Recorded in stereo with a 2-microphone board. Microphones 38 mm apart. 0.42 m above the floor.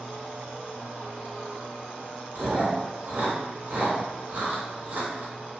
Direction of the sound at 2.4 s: 55° right (ahead or behind).